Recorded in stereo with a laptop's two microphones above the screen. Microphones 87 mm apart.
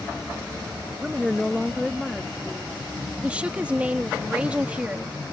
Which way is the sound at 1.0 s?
15° right (ahead or behind).